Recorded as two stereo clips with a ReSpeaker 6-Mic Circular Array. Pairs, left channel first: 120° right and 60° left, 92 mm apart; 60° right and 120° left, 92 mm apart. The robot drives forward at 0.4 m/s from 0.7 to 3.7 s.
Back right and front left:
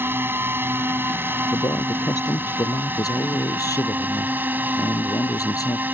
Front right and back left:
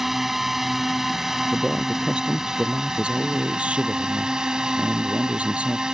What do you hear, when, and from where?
0.0 s a drone: 35° left; by 5.9 s 50° left
1.5 s a man speaking: 160° right; by 5.8 s 165° right